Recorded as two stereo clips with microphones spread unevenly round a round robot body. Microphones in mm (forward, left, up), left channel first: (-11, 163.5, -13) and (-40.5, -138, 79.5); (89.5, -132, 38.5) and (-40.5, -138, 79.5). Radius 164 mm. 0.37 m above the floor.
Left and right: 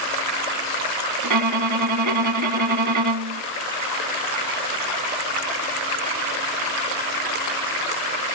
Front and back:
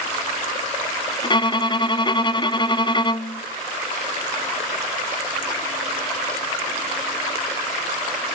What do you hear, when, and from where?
1.2 s a violin: 60° right, 0.7 m